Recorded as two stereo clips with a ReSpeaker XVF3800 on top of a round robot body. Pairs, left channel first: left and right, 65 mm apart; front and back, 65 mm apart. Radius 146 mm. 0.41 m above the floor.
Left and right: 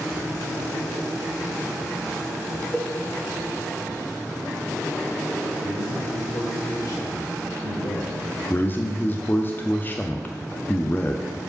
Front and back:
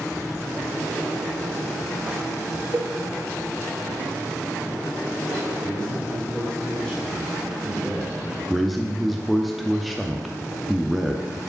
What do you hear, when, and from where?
2.7 s a cowbell: 165° right, 0.7 m
5.6 s a man speaking: 75° left, 2 m
8.5 s a man speaking: 90° left, 0.9 m